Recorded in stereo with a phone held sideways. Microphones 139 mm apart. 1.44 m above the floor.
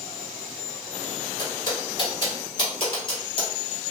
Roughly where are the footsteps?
Left.